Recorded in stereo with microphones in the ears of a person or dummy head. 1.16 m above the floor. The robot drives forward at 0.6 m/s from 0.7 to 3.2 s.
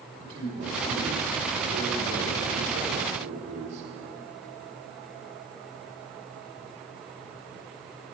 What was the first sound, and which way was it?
A man speaking, 35° right (ahead or behind).